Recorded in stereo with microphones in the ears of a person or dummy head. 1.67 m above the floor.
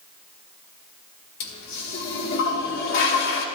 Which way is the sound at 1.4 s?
55° left (ahead or behind).